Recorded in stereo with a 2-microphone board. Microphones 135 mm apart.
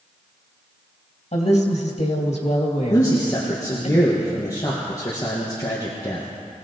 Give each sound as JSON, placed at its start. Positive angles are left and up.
{"t": 1.3, "sound": "a woman speaking", "side_deg": 55, "distance_m": 3.0}
{"t": 2.9, "sound": "a man speaking", "side_deg": 25, "distance_m": 2.5}